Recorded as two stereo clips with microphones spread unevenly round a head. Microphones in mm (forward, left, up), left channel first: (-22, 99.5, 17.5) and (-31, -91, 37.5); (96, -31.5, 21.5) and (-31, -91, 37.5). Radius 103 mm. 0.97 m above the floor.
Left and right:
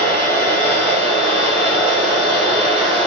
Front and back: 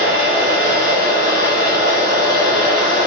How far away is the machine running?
About 1.4 m.